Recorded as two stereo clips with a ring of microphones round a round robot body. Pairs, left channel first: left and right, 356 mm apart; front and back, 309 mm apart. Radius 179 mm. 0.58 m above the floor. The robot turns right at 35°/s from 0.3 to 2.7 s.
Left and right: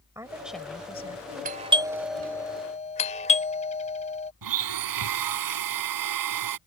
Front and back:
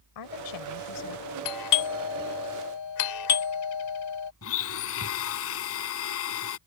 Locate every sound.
0.1 s a woman speaking: 10° right; by 1.2 s 25° left
1.4 s a doorbell: 25° right; by 4.3 s 20° left
4.4 s a blender: 55° right